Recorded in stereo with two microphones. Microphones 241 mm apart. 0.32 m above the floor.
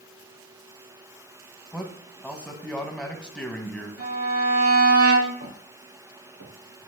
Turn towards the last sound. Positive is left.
turn(degrees=-85)